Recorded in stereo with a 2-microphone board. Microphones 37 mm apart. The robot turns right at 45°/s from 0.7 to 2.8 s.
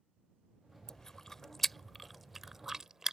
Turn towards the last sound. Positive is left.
turn(degrees=-10)  # may be behind; listen again after turning